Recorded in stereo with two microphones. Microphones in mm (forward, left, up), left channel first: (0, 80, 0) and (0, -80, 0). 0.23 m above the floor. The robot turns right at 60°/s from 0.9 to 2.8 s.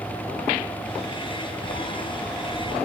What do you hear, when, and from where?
1.6 s a sliding door: 130° left, 6 m; by 2.9 s 160° right, 6 m